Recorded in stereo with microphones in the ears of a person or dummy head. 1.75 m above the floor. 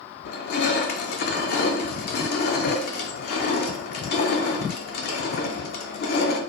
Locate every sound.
0.2 s crushing: 55° left (ahead or behind), 0.5 m